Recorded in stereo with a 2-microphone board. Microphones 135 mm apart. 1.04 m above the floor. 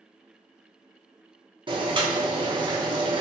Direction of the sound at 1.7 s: 35° right (ahead or behind).